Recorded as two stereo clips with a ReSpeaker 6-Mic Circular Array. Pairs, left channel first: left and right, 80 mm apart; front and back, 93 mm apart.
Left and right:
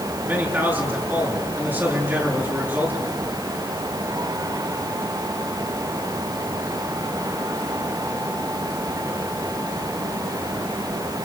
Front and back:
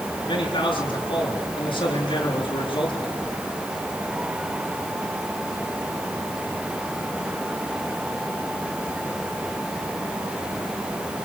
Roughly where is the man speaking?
Ahead right.